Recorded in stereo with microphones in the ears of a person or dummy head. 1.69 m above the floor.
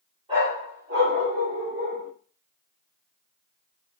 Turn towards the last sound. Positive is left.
turn(degrees=-50)  # may be behind; listen again after turning